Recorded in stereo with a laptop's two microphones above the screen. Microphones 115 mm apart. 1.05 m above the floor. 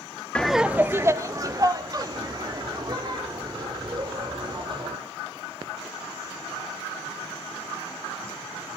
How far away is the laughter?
About 0.5 m.